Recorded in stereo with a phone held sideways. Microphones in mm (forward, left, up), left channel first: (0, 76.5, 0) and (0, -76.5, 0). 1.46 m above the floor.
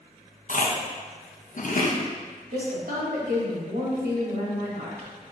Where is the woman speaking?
75° right (ahead or behind), 1.9 m.